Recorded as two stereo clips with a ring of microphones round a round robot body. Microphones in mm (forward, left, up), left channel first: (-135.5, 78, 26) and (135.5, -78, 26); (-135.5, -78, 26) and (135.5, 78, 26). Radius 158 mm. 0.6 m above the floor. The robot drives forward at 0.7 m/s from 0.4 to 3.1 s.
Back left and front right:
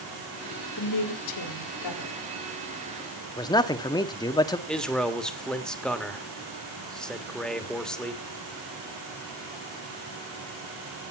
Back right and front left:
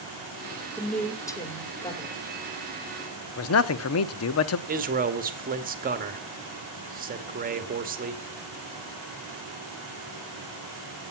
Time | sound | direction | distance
0.8 | a woman speaking | 120° left | 1.8 m
3.4 | a man speaking | 135° right | 0.8 m
4.7 | a man speaking | 65° left | 1.4 m